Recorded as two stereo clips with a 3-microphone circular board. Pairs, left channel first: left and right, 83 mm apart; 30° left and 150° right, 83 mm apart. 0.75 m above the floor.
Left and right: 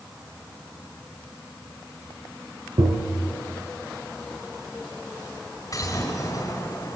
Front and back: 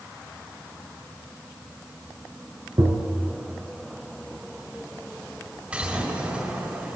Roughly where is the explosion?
Behind left.